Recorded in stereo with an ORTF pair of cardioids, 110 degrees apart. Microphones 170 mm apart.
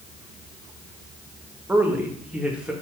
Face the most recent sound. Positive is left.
turn(degrees=-5)